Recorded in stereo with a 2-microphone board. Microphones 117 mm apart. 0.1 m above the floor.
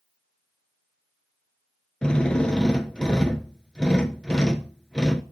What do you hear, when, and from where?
2.0 s a drill: 5° left (ahead or behind), 0.5 m